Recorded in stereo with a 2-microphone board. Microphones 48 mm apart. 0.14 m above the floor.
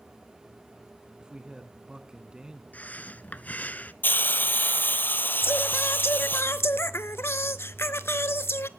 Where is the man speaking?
20° right (ahead or behind), 1.1 m.